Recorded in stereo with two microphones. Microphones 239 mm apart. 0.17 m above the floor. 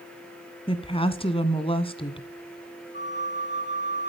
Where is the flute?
45° left (ahead or behind), 3 m.